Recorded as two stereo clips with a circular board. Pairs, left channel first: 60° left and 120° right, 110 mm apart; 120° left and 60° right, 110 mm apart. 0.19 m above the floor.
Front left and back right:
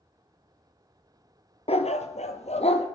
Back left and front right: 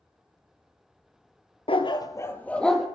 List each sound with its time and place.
1.7 s a dog barking: 85° left, 1.1 m; by 2.9 s 30° left, 1.7 m